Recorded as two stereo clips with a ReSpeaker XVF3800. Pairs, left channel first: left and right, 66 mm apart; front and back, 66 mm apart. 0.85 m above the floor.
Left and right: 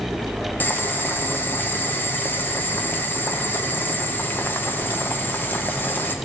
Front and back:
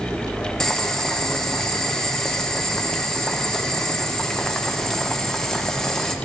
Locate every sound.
0.6 s boiling: 75° left, 0.6 m